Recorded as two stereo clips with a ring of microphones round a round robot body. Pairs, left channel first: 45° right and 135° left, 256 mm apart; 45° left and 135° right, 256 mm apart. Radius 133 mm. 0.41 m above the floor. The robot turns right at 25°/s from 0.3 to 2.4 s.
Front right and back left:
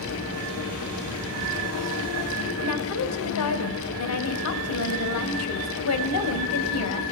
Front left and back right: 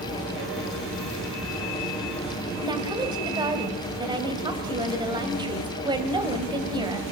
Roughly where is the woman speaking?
Ahead right.